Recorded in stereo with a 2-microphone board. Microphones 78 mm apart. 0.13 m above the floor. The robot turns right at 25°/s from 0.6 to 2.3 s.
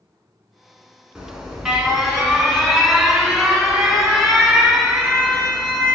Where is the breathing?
I don't hear breathing.